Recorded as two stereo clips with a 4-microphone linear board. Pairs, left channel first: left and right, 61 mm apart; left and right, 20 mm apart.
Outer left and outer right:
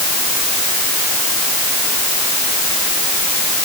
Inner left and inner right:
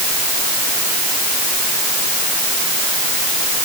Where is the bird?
No bird in this recording.